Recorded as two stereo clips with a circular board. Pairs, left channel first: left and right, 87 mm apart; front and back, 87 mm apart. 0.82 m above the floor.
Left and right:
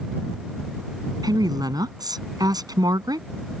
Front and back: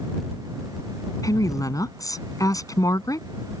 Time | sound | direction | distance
1.2 | a woman speaking | 50° right | ?